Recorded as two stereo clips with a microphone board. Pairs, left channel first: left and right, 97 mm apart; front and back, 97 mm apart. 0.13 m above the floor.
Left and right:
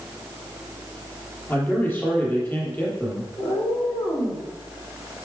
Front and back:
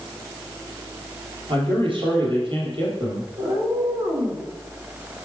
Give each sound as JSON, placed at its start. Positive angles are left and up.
{"t": 1.5, "sound": "a man speaking", "azimuth_deg": 155, "distance_m": 3.5}
{"t": 3.4, "sound": "a cat meowing", "azimuth_deg": 130, "distance_m": 3.5}